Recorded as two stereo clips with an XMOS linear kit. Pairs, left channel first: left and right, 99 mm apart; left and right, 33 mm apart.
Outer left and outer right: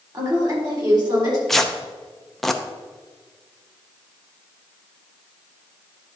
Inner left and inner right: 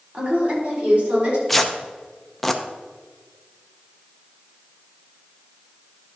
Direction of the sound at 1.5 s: 5° left (ahead or behind).